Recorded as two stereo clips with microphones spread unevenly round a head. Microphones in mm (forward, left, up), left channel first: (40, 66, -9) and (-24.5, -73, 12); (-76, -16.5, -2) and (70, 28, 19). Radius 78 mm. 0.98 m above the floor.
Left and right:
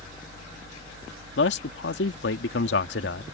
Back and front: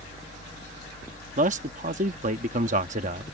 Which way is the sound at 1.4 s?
60° left.